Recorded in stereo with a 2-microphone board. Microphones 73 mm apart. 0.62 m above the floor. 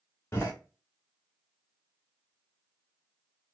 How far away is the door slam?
About 1.1 m.